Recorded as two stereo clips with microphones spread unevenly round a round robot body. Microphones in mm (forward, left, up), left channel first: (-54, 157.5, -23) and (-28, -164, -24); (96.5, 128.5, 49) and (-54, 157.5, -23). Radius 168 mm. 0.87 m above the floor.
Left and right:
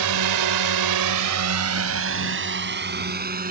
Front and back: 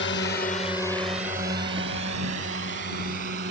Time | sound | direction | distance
0.0 | a drone | 60° right | ?